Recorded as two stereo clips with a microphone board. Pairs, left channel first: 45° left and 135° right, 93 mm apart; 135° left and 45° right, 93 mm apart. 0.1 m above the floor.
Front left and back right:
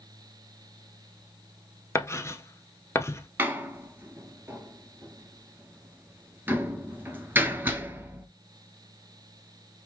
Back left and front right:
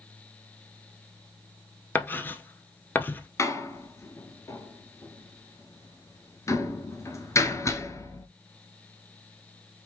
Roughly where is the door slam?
Behind.